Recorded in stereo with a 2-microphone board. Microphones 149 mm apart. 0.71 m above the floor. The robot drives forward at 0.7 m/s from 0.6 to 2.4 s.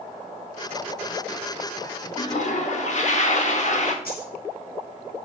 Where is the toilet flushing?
45° left (ahead or behind), 1.1 m; by 4.0 s 50° left (ahead or behind), 1.0 m.